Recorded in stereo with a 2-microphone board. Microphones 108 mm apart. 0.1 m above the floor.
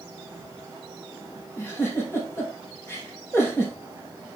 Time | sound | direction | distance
1.6 | a giggle | 25° left (ahead or behind) | 4 m